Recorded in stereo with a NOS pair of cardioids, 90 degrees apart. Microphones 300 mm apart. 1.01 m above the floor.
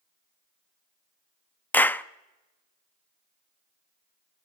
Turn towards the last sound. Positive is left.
turn(degrees=5)